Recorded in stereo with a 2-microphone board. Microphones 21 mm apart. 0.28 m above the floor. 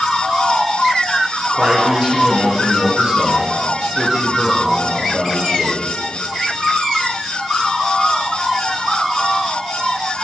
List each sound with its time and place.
1.5 s a man speaking: 35° right (ahead or behind), 4 m